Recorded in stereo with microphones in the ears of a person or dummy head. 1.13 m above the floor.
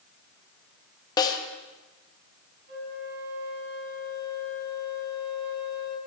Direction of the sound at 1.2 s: 20° left (ahead or behind).